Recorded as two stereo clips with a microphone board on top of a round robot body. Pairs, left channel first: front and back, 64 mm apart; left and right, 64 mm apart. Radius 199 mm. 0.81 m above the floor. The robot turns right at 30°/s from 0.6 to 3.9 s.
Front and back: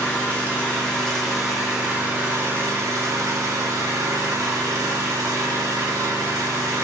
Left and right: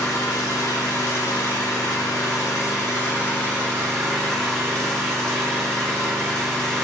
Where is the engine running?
70° left, 1.8 m; by 6.8 s 170° left, 1.8 m.